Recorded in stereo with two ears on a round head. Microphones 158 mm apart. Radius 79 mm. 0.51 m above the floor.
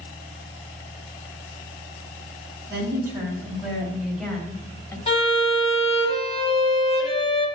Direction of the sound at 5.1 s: 35° left (ahead or behind).